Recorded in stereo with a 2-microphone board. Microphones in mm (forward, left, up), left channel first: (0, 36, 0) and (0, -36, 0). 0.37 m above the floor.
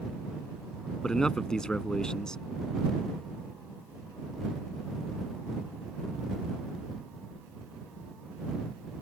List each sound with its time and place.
1.0 s a man speaking: 10° left (ahead or behind)